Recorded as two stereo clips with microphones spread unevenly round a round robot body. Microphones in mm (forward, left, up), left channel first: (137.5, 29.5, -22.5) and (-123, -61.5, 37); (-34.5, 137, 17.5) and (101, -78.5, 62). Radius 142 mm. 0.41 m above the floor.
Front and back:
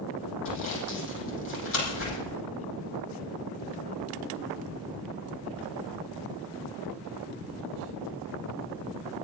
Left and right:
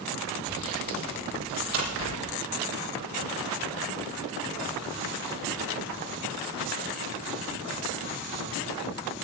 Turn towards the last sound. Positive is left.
turn(degrees=-25)